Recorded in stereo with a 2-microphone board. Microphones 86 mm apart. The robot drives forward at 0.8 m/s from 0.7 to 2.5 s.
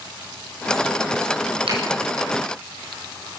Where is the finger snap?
75° right (ahead or behind), 8 m.